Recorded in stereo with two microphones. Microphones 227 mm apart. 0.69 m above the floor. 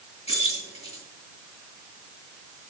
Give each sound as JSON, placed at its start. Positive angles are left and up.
{"t": 0.3, "sound": "keys jangling", "side_deg": 25, "distance_m": 7.5}